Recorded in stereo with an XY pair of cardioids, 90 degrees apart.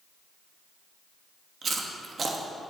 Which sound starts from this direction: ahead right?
Chewing, at 1.6 s.